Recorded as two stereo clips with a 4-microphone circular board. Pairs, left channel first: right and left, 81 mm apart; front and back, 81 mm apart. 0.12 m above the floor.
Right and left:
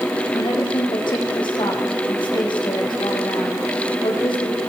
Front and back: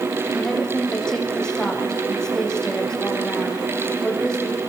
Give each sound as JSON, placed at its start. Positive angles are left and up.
{"t": 0.3, "sound": "a woman speaking", "azimuth_deg": -80, "distance_m": 7.5}